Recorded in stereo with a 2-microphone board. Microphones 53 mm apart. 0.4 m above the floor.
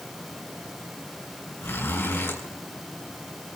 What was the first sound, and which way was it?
A zipper, 50° left (ahead or behind).